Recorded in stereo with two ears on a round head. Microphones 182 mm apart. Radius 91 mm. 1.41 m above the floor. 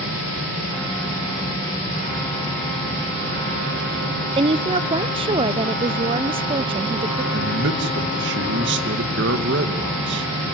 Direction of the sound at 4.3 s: 25° right (ahead or behind).